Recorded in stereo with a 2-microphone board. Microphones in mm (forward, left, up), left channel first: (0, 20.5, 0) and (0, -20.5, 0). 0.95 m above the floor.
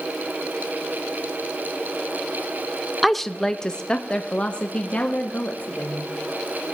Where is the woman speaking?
Centre (ahead or behind), 0.5 m; by 6.1 s 40° left (ahead or behind), 1.9 m.